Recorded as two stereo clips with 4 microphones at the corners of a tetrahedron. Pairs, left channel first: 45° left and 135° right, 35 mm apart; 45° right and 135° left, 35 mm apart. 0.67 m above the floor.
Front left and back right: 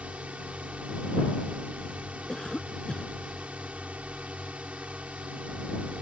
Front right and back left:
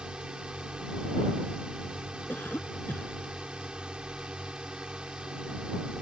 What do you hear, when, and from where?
0.0 s a drone: 170° right
2.3 s a cough: 25° right